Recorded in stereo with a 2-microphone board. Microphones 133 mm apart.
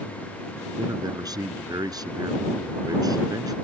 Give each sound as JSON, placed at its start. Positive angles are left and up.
{"t": 0.8, "sound": "a man speaking", "side_deg": -30}